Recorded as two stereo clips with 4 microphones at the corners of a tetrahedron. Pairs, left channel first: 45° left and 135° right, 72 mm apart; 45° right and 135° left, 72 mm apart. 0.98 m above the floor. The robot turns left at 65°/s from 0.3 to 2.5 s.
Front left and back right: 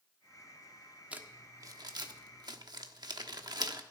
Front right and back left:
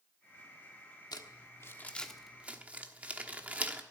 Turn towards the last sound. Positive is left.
turn(degrees=-155)